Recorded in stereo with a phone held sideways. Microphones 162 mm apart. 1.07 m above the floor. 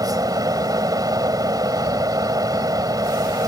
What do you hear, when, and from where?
0.0 s a fan: 25° right (ahead or behind)